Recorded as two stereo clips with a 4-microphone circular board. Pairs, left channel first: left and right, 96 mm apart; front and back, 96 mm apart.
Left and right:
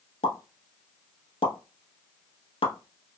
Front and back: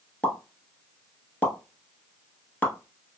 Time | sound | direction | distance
0.2 | a pop | 75° left | 0.8 m